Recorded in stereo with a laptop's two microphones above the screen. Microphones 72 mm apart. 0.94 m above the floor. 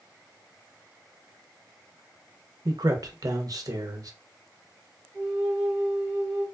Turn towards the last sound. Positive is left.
turn(degrees=0)  # may be behind; listen again after turning